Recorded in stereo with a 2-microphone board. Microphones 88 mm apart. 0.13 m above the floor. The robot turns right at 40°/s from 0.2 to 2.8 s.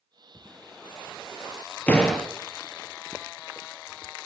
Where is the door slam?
15° left (ahead or behind), 1.6 m; by 2.3 s centre (ahead or behind), 1.6 m.